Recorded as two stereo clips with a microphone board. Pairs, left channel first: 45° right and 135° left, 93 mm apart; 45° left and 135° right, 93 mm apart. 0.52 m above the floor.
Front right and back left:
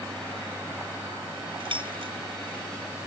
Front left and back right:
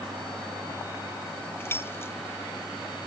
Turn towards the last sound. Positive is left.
turn(degrees=110)